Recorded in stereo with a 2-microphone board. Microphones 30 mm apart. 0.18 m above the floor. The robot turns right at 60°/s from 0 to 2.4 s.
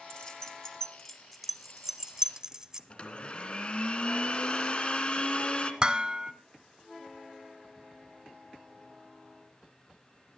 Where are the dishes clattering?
30° right (ahead or behind), 0.9 m.